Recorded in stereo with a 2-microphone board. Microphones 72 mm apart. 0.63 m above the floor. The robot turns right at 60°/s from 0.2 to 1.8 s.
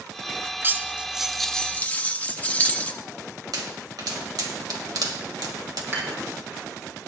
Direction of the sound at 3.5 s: 75° right (ahead or behind).